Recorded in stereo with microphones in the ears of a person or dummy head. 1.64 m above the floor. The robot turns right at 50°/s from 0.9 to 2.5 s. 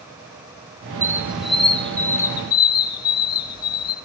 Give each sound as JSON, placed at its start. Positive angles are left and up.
{"t": 1.0, "sound": "a squeak", "side_deg": -10, "distance_m": 0.9}